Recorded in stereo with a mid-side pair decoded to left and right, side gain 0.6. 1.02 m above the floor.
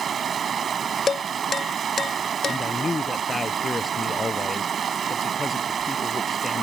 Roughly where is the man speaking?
Ahead.